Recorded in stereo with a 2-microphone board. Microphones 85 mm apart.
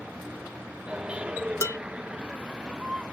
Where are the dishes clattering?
40° left (ahead or behind).